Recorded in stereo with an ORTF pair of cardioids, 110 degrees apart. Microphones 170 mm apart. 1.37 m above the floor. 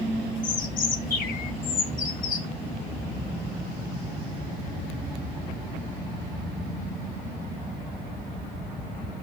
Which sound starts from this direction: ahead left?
A bird, at 0.4 s.